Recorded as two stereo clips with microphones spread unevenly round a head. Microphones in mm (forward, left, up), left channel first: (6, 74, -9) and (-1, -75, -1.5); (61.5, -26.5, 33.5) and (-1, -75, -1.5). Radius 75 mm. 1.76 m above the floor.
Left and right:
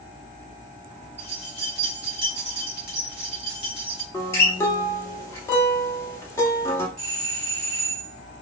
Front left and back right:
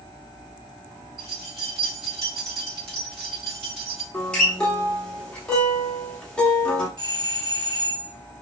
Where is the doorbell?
130° right, 1.5 m.